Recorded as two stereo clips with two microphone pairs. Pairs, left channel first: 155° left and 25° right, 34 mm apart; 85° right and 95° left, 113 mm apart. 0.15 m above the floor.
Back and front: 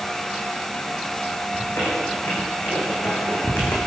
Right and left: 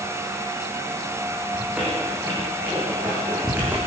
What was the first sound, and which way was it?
A squeak, 170° left.